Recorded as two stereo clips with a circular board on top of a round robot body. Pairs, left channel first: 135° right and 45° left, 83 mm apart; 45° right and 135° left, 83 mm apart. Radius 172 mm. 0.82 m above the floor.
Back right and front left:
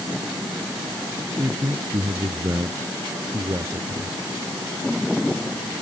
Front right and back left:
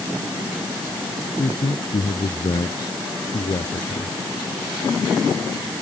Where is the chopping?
I don't hear chopping.